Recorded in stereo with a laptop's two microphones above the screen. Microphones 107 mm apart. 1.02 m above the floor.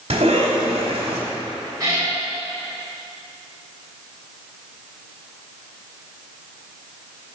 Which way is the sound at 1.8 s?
35° right (ahead or behind).